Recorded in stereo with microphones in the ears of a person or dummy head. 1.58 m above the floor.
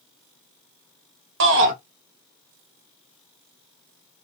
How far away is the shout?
About 1.7 m.